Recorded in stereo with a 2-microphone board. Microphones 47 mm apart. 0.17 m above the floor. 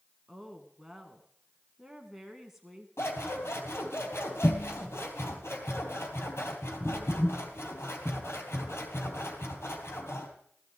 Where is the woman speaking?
5° right (ahead or behind), 1.5 m.